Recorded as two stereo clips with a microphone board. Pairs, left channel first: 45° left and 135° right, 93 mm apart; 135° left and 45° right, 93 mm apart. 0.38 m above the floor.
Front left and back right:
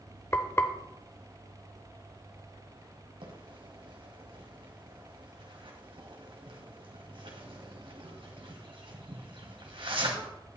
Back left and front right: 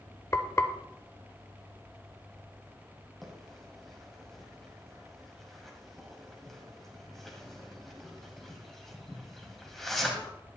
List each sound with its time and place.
0.3 s frying: 95° left, 0.8 m
3.2 s a bird: 140° right, 1.9 m